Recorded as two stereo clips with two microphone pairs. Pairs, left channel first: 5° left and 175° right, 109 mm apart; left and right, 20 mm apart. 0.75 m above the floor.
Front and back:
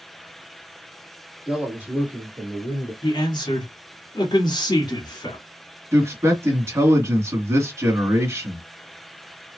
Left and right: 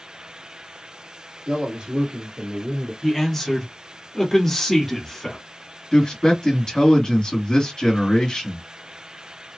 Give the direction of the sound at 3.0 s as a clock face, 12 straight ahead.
11 o'clock.